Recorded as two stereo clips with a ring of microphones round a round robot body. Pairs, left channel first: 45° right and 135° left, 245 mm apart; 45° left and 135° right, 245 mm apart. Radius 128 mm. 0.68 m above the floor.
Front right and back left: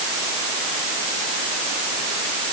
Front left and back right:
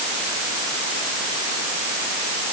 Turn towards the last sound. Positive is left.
No sound to turn to.